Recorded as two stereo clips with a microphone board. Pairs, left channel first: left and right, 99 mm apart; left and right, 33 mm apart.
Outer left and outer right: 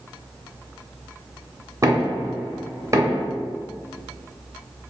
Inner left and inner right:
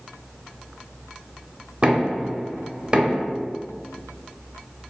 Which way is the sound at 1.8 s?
30° right (ahead or behind).